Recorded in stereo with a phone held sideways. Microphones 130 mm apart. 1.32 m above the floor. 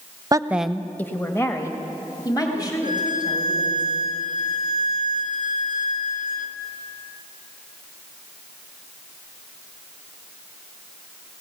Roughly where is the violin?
Left.